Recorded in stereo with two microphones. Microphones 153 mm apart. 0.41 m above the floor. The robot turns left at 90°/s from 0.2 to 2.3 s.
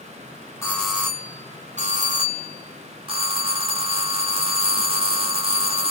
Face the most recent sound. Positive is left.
turn(degrees=-130)